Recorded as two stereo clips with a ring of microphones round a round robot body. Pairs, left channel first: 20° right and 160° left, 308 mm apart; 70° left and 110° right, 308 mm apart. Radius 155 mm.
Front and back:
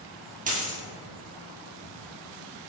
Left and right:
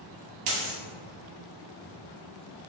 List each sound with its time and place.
0.5 s a dropped coin: 135° right, 1.7 m